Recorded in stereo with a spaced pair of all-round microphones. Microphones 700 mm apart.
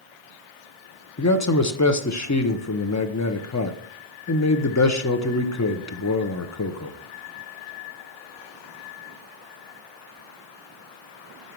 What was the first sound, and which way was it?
A man speaking, 25° left (ahead or behind).